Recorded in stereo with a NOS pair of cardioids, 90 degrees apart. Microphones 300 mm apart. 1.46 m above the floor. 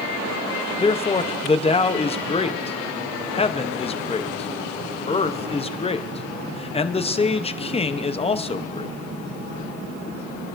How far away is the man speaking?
About 0.7 m.